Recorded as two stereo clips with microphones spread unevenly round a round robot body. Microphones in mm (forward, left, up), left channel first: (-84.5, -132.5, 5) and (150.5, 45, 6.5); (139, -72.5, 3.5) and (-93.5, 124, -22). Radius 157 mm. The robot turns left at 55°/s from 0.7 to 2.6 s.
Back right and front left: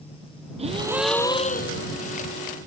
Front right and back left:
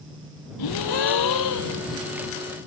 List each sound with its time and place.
0.6 s a gasp: 35° right; by 1.9 s 95° right